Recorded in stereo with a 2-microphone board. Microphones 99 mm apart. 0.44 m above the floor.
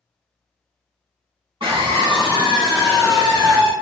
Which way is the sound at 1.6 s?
55° right (ahead or behind).